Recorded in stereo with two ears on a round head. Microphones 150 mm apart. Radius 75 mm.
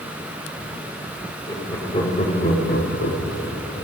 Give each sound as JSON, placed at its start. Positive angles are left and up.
{"t": 1.5, "sound": "laughter", "side_deg": 20, "distance_m": 2.5}